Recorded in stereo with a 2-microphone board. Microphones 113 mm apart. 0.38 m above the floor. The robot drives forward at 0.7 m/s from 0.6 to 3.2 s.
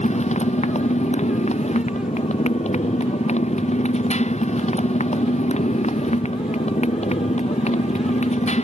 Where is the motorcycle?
85° left; by 8.7 s 80° left.